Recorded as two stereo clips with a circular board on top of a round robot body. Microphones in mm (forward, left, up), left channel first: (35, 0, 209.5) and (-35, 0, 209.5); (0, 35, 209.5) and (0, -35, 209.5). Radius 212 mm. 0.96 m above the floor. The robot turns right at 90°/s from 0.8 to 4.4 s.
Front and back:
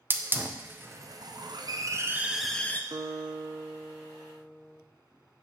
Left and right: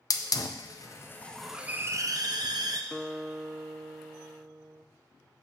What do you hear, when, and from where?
0.1 s a hiss: 120° left, 0.6 m; by 2.8 s 60° right, 0.6 m
2.9 s a guitar: 165° left, 0.7 m; by 4.8 s 60° right, 0.7 m